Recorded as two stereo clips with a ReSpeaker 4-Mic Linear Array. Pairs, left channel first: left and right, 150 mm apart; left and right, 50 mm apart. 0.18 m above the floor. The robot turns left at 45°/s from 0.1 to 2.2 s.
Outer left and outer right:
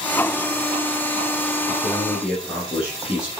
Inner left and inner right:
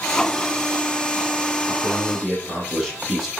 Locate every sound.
1.7 s a man speaking: 15° left (ahead or behind), 5.5 m; by 3.3 s 5° right (ahead or behind), 5.5 m